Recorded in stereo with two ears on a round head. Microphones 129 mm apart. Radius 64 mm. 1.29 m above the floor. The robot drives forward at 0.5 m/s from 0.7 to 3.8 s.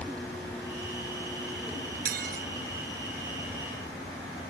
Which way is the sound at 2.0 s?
65° right (ahead or behind).